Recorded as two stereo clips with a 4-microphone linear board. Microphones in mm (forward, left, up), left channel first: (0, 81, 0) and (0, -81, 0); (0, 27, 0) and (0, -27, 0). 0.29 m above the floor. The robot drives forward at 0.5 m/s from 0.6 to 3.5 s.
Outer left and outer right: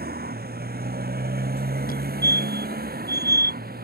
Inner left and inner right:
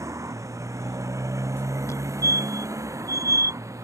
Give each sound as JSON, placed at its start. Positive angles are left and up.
{"t": 0.0, "sound": "a motorcycle", "side_deg": -90}
{"t": 1.9, "sound": "a fire alarm", "side_deg": 70}